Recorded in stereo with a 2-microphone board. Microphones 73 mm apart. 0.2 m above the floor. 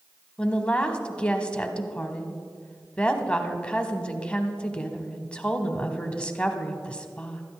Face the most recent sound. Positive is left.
turn(degrees=15)  # may be behind; listen again after turning